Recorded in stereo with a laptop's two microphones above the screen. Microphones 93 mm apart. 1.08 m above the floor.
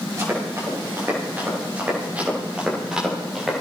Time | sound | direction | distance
0.2 | running footsteps | 35° right (ahead or behind) | 8.5 m